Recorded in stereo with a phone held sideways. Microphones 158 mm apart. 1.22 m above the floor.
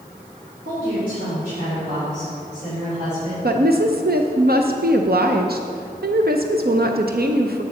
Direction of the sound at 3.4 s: 80° right.